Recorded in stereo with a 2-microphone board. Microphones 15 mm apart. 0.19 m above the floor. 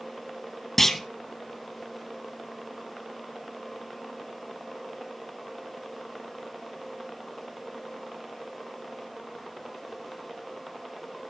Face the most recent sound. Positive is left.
turn(degrees=15)  # may be behind; listen again after turning